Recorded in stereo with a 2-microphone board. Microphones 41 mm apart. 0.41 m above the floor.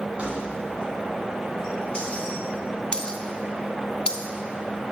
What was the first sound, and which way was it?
Keys jangling, 35° right (ahead or behind).